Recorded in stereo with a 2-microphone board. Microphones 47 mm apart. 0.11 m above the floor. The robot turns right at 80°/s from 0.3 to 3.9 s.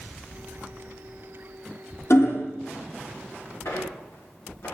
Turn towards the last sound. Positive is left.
turn(degrees=55)  # may be behind; listen again after turning